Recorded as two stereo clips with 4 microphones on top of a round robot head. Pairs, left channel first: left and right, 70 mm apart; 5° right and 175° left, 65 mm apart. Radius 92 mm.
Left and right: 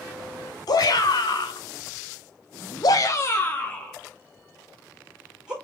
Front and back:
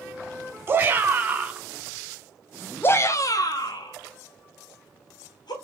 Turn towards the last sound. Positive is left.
turn(degrees=-5)